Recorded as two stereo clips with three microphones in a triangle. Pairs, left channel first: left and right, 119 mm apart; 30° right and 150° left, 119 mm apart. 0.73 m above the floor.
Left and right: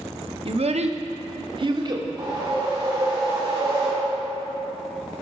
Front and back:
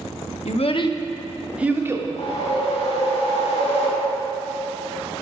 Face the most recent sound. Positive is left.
turn(degrees=-35)